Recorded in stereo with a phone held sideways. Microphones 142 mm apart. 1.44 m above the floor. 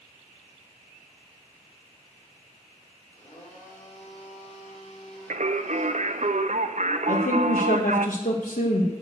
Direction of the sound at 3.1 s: 60° left (ahead or behind).